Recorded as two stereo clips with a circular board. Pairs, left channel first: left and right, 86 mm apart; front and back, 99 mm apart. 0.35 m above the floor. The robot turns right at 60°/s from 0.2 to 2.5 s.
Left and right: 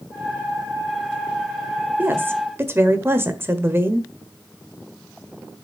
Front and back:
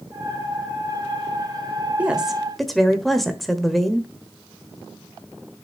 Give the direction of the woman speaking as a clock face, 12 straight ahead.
4 o'clock.